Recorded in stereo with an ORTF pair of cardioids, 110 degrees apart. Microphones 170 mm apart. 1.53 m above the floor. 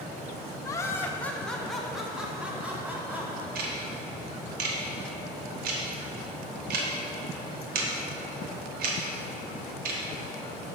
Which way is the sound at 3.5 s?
65° right.